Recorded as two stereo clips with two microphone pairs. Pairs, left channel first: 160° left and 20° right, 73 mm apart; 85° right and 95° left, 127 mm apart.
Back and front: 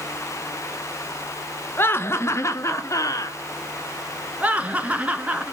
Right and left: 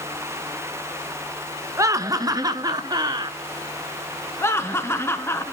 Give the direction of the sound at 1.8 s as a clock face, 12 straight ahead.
7 o'clock.